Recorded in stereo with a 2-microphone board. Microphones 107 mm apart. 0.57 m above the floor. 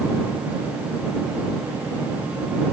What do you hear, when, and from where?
Only background noise.